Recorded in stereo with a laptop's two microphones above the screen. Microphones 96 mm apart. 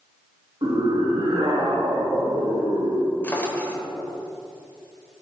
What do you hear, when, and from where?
0.6 s a scream: 55° right (ahead or behind), 1.4 m; by 3.1 s 65° right (ahead or behind), 2 m
3.2 s a drawer: 20° left (ahead or behind), 0.9 m